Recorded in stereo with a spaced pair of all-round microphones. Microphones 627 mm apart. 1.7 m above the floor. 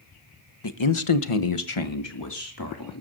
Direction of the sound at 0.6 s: 45° left (ahead or behind).